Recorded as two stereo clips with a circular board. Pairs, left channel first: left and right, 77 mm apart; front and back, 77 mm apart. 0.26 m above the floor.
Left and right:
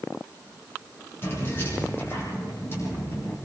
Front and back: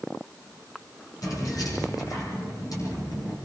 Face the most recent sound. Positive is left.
turn(degrees=35)